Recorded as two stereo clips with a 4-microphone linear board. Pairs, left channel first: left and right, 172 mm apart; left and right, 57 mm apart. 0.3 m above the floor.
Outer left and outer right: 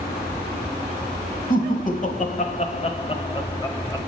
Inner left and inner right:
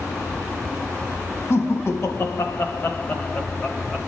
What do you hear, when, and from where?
1.5 s laughter: 55° left (ahead or behind), 1.6 m; by 4.0 s 15° left (ahead or behind), 1.4 m